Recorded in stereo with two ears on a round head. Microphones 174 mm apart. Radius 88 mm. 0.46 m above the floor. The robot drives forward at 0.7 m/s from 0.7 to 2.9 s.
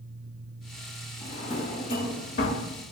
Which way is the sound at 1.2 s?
30° left (ahead or behind).